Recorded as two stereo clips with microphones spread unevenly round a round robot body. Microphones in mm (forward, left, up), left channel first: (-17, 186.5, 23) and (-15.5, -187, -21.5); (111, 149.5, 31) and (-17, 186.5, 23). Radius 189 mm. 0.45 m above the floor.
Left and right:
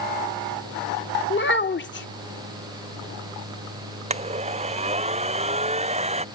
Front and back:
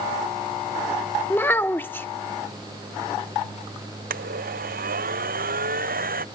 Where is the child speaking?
50° left.